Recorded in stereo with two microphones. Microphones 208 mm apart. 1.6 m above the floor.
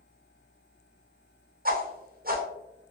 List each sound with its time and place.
1.6 s a whoosh: 45° right (ahead or behind), 0.8 m